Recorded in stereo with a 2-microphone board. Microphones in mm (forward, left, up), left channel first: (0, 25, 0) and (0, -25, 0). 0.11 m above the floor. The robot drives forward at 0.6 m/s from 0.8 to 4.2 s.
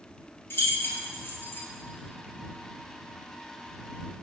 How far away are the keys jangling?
About 1.5 m.